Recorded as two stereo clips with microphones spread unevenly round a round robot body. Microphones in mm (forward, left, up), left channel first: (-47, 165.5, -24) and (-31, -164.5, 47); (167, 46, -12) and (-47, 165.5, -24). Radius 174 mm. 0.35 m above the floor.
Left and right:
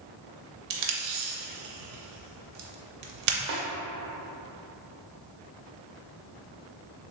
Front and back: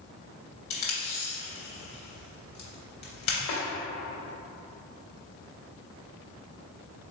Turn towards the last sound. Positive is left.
turn(degrees=-30)